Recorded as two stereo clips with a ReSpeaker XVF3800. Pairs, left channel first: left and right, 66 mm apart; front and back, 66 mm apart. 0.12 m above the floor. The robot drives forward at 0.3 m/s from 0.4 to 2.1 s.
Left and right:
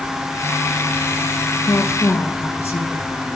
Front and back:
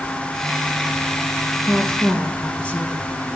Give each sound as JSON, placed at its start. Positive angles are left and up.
{"t": 1.6, "sound": "a woman speaking", "azimuth_deg": 60, "distance_m": 2.0}